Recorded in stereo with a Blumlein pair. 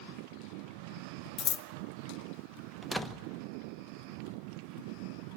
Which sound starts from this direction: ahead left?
Scissors, at 1.4 s.